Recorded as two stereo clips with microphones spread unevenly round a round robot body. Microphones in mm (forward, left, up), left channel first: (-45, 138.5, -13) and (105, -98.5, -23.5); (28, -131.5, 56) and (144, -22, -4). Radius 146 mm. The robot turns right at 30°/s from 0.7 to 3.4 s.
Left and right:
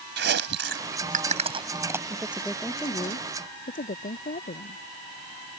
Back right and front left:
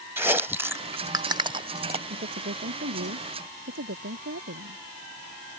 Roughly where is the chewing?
Ahead.